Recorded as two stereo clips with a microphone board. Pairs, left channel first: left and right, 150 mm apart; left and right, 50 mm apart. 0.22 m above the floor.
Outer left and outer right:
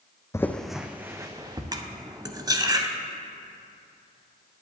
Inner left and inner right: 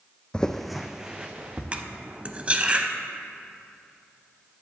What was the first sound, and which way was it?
Footsteps, 20° left (ahead or behind).